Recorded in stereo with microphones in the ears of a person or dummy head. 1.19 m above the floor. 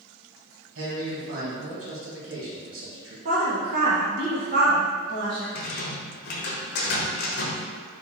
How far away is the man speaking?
About 1.6 m.